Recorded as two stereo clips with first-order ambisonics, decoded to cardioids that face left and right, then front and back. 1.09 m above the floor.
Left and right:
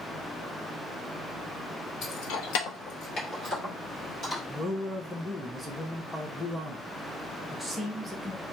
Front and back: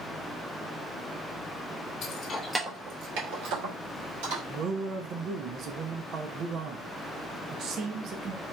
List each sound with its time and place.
2.0 s keys jangling: 40° left, 0.9 m; by 4.4 s 175° left, 2.5 m
4.5 s a man speaking: 175° left, 0.5 m